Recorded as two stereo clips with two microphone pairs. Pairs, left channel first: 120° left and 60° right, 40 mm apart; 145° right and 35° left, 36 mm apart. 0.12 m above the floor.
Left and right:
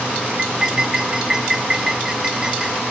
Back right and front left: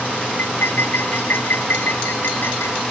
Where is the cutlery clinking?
135° right.